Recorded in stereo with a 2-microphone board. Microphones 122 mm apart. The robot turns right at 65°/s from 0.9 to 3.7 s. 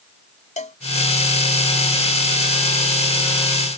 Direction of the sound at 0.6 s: 80° left.